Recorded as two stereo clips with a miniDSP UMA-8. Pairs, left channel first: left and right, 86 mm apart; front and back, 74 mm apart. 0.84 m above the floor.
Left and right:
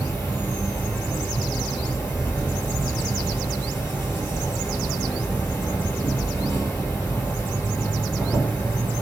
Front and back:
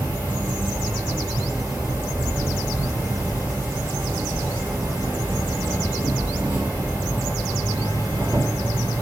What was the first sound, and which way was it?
An insect, 135° left.